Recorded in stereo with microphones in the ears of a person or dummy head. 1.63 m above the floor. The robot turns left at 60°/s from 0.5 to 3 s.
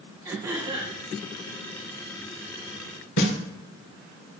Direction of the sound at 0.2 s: 20° right (ahead or behind).